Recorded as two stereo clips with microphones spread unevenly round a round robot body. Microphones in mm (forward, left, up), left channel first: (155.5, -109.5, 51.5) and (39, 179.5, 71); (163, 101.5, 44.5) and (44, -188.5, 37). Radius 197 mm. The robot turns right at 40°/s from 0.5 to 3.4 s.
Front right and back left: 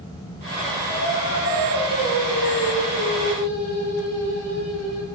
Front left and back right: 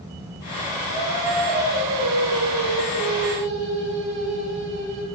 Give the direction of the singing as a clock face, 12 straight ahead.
5 o'clock.